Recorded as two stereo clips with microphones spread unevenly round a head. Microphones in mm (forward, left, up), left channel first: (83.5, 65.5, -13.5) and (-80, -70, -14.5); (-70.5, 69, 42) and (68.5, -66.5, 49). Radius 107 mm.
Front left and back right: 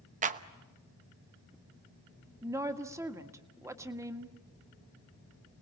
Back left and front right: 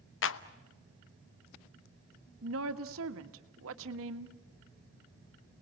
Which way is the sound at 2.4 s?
65° right.